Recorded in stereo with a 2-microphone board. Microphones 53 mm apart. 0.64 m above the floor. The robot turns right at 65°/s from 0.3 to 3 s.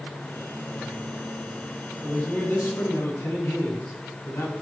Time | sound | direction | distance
2.0 | a man speaking | 15° left | 6.5 m